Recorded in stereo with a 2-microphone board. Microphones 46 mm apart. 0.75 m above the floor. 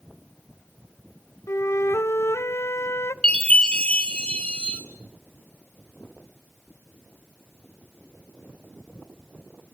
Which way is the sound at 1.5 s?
85° left.